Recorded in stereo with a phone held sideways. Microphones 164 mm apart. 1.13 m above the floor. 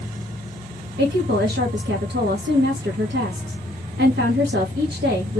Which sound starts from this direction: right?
A woman speaking, at 1.0 s.